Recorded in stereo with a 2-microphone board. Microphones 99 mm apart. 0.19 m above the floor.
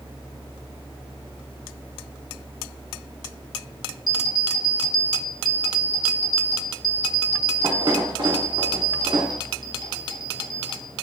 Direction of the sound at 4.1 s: 50° right (ahead or behind).